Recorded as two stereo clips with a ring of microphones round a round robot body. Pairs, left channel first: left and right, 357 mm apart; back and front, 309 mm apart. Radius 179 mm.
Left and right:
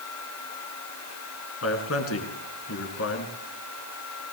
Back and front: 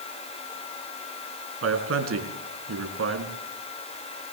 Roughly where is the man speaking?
Ahead left.